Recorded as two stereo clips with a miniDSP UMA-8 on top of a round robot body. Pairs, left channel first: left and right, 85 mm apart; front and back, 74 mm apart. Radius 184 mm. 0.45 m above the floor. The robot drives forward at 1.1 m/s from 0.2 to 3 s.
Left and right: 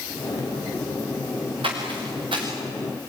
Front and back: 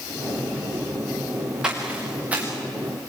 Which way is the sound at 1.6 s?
100° right.